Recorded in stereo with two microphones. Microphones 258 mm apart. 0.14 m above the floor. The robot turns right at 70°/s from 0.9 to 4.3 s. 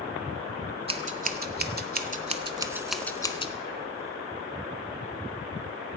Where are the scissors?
20° right (ahead or behind), 0.7 m; by 3.5 s 25° left (ahead or behind), 0.7 m.